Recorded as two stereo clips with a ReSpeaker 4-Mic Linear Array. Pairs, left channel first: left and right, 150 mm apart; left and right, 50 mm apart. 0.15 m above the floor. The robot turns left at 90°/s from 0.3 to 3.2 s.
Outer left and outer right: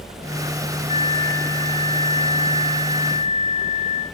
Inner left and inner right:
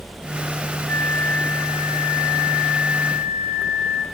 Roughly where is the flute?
Ahead left.